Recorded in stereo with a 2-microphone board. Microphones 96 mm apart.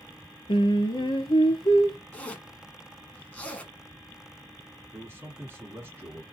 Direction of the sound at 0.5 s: 70° left (ahead or behind).